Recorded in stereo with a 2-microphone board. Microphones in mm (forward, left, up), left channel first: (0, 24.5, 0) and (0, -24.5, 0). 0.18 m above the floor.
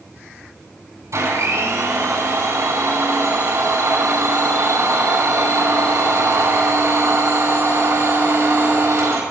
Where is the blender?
80° right, 7.5 m.